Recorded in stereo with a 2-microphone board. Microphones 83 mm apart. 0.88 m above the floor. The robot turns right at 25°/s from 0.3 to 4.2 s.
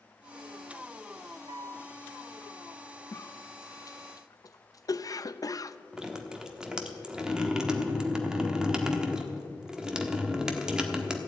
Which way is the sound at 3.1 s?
30° left (ahead or behind).